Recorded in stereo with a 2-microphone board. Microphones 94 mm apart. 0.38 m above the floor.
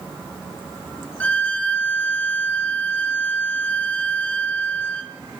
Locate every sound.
1.2 s a violin: 15° left (ahead or behind), 1.7 m